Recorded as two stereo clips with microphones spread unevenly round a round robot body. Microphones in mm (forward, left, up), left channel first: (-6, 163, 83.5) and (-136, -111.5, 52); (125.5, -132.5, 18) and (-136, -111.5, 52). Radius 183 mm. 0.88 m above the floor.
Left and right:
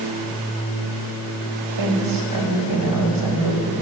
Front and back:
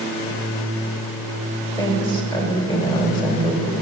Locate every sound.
1.8 s a woman speaking: 75° right, 4.5 m